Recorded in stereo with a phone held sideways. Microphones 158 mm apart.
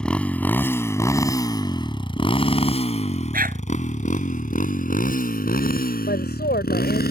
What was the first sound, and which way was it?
A motorcycle, 5° left (ahead or behind).